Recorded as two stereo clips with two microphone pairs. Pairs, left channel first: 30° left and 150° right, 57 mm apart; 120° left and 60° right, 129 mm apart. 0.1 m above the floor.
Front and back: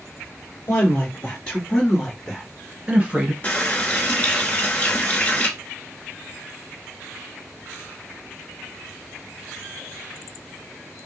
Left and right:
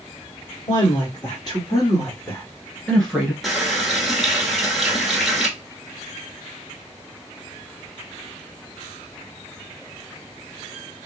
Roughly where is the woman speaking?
Left.